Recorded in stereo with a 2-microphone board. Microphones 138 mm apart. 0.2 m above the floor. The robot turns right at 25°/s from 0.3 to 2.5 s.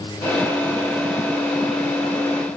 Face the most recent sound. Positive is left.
No sound to turn to.